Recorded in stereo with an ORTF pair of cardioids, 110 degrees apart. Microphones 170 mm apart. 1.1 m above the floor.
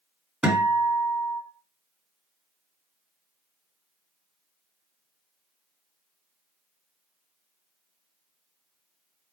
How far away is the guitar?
About 1.6 m.